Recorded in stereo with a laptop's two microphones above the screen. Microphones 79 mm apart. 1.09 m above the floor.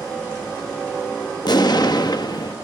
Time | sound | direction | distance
1.4 | an explosion | 60° left (ahead or behind) | 0.9 m